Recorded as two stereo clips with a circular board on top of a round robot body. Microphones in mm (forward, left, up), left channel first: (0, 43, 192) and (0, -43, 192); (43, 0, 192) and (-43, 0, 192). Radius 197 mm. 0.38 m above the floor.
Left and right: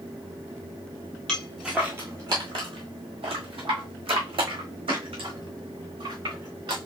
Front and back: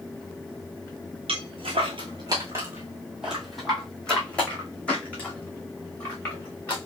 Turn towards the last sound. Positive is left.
turn(degrees=-70)